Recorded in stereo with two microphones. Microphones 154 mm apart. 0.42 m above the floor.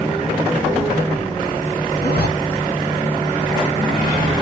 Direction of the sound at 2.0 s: 85° left.